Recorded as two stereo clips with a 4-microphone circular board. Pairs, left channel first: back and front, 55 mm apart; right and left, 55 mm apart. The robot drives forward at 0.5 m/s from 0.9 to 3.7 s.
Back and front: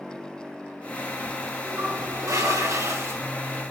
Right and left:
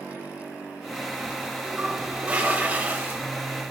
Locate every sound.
1.6 s a toilet flushing: 20° left, 1.6 m; by 3.2 s 40° left, 0.9 m